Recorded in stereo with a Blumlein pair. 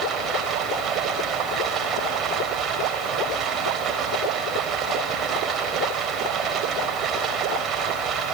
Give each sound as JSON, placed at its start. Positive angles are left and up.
{"t": 0.0, "sound": "running water", "azimuth_deg": -25, "distance_m": 3.5}